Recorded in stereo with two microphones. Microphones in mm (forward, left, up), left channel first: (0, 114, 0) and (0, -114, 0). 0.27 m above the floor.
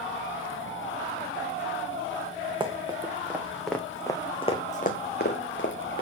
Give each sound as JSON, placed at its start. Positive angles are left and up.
{"t": 2.6, "sound": "running footsteps", "side_deg": -20, "distance_m": 1.5}